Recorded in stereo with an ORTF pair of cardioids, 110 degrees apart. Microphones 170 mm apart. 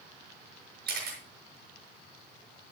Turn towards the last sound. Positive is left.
turn(degrees=-65)